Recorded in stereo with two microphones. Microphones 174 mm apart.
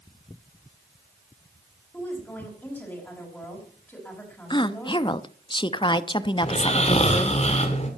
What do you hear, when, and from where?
1.9 s a woman speaking: 10° left (ahead or behind), 4.5 m
4.5 s a woman speaking: 30° left (ahead or behind), 0.6 m
6.4 s snoring: 40° left (ahead or behind), 2 m